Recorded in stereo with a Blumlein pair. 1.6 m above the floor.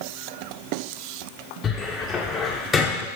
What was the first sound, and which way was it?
A cupboard door, 20° left.